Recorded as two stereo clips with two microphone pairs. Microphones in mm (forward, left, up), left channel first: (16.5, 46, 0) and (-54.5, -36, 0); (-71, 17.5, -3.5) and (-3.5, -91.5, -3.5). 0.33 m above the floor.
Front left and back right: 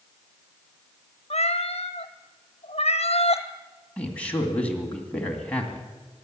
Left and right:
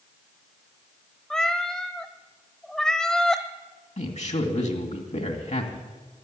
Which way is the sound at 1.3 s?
35° left.